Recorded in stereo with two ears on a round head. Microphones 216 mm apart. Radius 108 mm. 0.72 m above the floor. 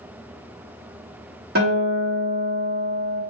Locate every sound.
1.6 s a guitar: 40° right (ahead or behind), 1.2 m